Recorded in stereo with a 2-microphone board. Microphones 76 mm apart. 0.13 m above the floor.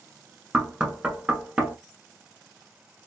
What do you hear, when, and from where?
0.5 s knocking: 10° right (ahead or behind), 1.0 m